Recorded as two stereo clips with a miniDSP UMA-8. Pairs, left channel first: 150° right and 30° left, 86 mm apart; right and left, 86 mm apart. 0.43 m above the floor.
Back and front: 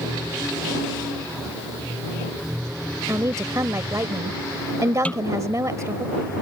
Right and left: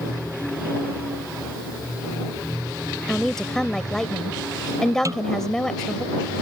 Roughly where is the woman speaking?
Ahead.